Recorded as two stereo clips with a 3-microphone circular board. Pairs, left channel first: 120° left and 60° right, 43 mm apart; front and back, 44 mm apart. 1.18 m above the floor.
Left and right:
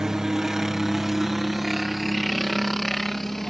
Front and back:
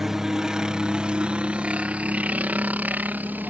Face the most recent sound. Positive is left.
turn(degrees=-155)